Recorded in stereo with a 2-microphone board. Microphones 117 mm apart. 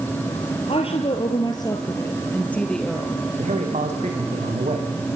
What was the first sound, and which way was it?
A woman speaking, 60° left (ahead or behind).